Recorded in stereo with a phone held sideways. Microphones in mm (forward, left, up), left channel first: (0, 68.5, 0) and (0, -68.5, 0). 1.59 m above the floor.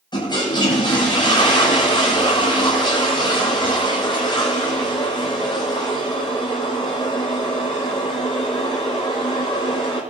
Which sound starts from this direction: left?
A toilet flushing, at 0.1 s.